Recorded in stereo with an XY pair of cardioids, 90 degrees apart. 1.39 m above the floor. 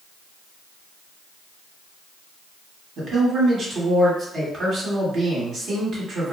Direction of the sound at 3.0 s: 60° right.